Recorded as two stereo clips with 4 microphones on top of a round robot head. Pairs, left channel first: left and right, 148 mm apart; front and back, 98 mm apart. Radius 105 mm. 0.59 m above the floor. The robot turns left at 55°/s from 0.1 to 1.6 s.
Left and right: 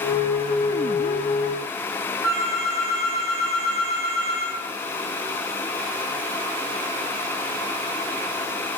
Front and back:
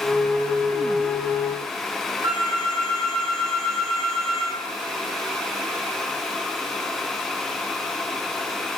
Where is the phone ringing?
170° right, 3.5 m.